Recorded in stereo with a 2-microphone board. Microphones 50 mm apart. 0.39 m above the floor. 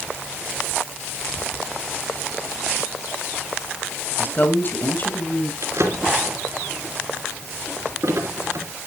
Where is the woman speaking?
40° left (ahead or behind), 2.5 m.